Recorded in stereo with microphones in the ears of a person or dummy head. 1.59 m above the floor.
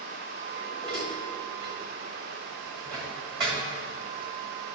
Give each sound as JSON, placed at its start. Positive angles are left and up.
{"t": 0.6, "sound": "dishes clattering", "side_deg": -25, "distance_m": 2.0}